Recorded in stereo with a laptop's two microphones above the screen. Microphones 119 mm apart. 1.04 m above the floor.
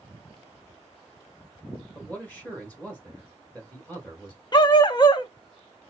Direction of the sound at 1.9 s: 15° left (ahead or behind).